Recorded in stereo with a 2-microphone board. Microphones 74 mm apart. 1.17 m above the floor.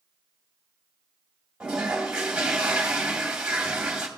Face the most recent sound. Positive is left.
turn(degrees=-10)  # may be behind; listen again after turning